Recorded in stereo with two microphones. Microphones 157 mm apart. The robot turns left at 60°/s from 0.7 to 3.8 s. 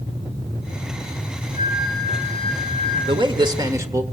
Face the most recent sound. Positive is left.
turn(degrees=-145)